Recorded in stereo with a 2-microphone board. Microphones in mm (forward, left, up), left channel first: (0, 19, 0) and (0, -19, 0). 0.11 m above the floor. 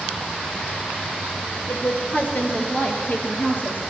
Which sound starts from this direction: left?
A woman speaking, at 1.7 s.